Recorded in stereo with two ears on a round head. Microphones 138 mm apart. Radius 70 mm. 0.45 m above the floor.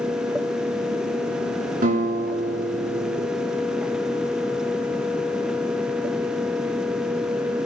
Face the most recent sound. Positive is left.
turn(degrees=-55)  # may be behind; listen again after turning